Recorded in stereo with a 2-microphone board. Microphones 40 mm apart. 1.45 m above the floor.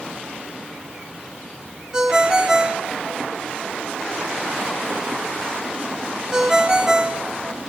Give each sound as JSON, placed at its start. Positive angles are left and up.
{"t": 1.9, "sound": "a ringtone", "side_deg": -15, "distance_m": 3.0}